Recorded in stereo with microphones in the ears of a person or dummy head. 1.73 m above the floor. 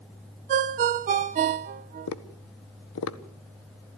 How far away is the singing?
No singing in this recording.